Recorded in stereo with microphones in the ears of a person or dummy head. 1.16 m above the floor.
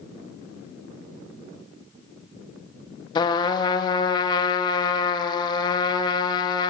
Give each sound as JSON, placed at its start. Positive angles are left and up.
{"t": 3.1, "sound": "a trumpet", "side_deg": 25, "distance_m": 1.2}